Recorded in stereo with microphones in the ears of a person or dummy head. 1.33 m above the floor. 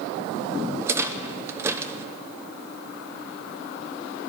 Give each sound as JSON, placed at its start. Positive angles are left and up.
{"t": 0.8, "sound": "a rattle", "side_deg": -15, "distance_m": 0.7}